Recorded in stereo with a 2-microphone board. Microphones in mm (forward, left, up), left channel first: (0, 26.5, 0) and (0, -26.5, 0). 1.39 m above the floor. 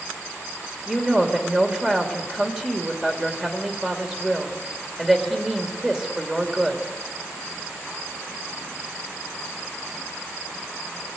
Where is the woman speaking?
10° right (ahead or behind), 2.5 m.